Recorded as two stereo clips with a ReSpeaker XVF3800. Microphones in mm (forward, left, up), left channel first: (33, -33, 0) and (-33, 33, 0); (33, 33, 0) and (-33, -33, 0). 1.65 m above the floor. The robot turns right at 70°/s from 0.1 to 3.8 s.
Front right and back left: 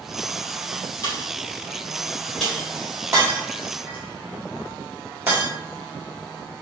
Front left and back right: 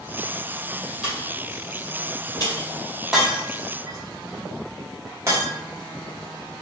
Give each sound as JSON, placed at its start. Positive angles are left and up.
{"t": 1.0, "sound": "a pop", "azimuth_deg": -60, "distance_m": 1.8}
{"t": 3.1, "sound": "breaking glass", "azimuth_deg": 140, "distance_m": 1.4}